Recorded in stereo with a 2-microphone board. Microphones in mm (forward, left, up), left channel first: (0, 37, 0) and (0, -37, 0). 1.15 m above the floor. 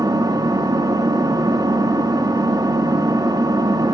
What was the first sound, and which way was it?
An engine running, 65° right (ahead or behind).